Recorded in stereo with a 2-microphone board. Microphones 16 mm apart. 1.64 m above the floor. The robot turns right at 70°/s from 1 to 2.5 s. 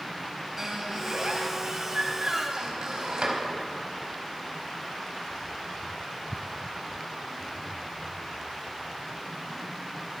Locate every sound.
0.6 s a squeak: 25° right (ahead or behind), 4.5 m; by 3.4 s 45° right (ahead or behind), 4.5 m